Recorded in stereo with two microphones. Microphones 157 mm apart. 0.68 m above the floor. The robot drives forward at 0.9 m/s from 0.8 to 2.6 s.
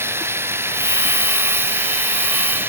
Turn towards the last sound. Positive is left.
turn(degrees=-15)  # may be behind; listen again after turning